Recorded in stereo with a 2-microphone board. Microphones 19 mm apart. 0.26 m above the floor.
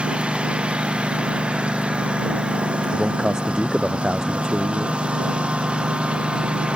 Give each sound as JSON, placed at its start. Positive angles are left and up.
{"t": 0.0, "sound": "a lawn mower", "side_deg": -90}
{"t": 2.9, "sound": "a man speaking", "side_deg": -35}